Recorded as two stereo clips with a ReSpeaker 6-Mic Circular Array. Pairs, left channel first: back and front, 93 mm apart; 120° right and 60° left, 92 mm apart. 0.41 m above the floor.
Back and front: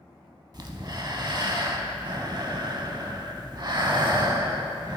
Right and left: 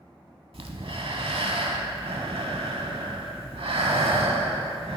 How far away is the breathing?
About 0.7 m.